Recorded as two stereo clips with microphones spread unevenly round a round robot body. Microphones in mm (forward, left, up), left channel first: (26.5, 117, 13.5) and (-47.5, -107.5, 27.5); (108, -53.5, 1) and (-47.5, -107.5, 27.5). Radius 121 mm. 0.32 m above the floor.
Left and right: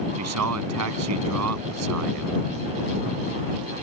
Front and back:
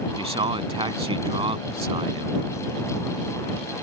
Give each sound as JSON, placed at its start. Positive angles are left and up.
{"t": 0.2, "sound": "a man speaking", "azimuth_deg": -105}